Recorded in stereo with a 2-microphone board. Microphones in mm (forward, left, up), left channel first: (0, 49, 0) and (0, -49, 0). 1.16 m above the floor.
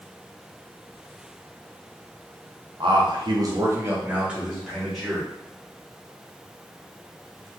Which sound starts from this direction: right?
A man speaking, at 2.8 s.